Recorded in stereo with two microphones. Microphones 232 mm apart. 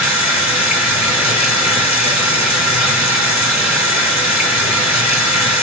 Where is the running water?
10° right (ahead or behind), 3.5 m.